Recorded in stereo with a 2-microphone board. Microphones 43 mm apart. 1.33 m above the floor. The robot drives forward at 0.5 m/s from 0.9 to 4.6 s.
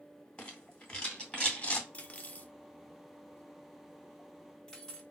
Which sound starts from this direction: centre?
A rattle, at 0.4 s.